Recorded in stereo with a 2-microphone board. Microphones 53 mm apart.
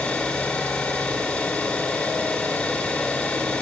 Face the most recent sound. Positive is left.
turn(degrees=25)  # may be behind; listen again after turning